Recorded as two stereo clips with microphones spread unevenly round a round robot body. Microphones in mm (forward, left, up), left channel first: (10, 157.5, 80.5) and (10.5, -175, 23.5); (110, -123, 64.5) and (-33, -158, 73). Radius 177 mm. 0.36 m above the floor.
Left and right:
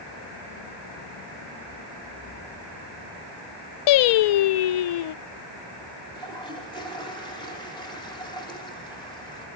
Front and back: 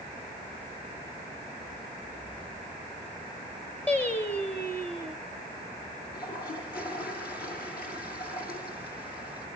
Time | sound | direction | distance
3.9 | singing | 90° left | 0.5 m
6.1 | a toilet flushing | 15° left | 5.5 m